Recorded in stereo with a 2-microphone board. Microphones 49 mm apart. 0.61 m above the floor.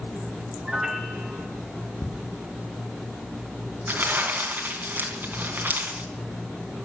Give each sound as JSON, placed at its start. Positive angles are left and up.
{"t": 0.7, "sound": "a piano", "side_deg": -10, "distance_m": 1.9}
{"t": 2.0, "sound": "ticking", "side_deg": 35, "distance_m": 1.2}
{"t": 3.9, "sound": "crumpling", "side_deg": -45, "distance_m": 3.5}